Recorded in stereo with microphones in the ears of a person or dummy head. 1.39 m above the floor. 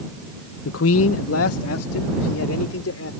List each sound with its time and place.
0.7 s a man speaking: 85° left; by 3.1 s 75° left (ahead or behind)